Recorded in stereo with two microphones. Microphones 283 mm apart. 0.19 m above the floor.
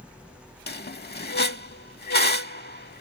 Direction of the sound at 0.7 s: 35° left (ahead or behind).